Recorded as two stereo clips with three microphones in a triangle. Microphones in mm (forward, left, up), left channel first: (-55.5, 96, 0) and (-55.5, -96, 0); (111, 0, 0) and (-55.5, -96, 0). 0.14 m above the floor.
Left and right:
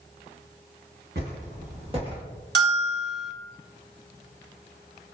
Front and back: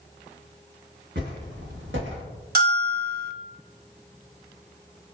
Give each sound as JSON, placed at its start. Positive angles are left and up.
{"t": 1.1, "sound": "footsteps", "azimuth_deg": -125, "distance_m": 1.9}
{"t": 2.5, "sound": "a bell", "azimuth_deg": -115, "distance_m": 0.6}